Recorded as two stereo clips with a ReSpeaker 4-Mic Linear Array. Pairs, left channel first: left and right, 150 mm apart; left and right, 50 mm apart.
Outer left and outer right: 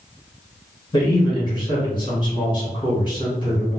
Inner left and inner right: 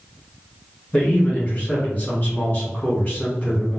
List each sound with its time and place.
0.9 s a man speaking: 30° left (ahead or behind), 1.9 m